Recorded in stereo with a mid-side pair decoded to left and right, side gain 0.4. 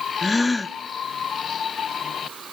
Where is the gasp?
20° left, 0.7 m.